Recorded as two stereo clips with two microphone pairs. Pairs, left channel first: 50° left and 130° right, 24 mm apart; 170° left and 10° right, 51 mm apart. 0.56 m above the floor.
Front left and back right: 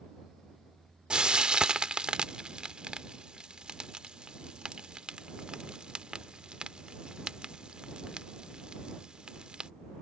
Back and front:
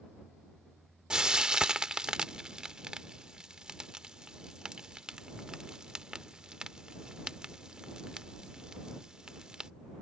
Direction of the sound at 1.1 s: 85° right.